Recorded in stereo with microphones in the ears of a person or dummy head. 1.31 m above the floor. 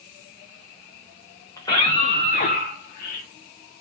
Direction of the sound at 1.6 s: 15° left (ahead or behind).